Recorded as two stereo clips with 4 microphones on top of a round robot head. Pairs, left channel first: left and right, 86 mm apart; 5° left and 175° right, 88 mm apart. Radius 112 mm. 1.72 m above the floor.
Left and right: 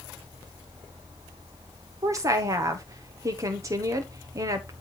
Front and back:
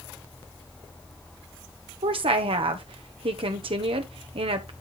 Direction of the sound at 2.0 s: 150° right.